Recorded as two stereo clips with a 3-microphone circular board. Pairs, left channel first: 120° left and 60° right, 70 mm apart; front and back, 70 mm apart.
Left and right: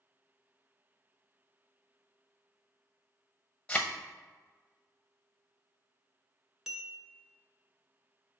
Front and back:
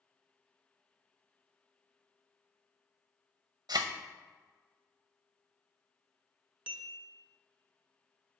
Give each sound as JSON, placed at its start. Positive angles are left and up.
{"t": 3.7, "sound": "a thud", "azimuth_deg": -165, "distance_m": 0.6}
{"t": 6.7, "sound": "a bell", "azimuth_deg": -140, "distance_m": 0.7}